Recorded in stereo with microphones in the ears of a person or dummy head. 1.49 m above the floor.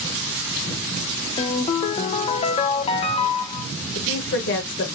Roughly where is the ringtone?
Left.